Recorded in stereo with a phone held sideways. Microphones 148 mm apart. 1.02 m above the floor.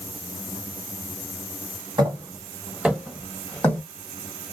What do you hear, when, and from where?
2.0 s footsteps: 30° right (ahead or behind), 1.4 m; by 3.8 s 15° left (ahead or behind), 1.5 m